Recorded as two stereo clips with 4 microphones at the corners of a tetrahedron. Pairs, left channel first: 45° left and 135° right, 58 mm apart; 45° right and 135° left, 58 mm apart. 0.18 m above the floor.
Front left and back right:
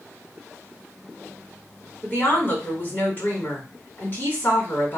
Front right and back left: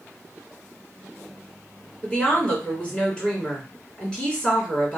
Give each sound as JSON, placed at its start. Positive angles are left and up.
{"t": 2.0, "sound": "a woman speaking", "azimuth_deg": 15, "distance_m": 2.0}